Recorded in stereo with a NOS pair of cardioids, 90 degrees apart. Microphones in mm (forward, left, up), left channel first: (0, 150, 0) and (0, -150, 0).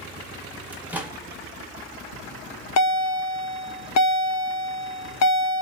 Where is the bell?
60° left, 0.6 m.